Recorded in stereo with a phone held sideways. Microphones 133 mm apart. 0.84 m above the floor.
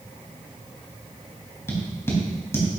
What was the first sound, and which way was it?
Tapping, 20° left (ahead or behind).